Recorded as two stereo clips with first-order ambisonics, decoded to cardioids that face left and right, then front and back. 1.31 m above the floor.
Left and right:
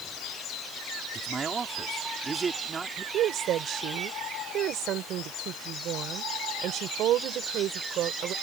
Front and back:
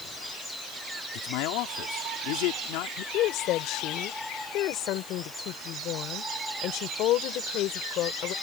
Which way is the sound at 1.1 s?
15° right.